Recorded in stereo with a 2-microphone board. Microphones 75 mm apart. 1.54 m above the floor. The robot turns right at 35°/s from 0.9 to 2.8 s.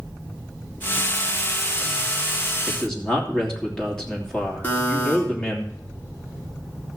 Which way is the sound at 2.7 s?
15° left (ahead or behind).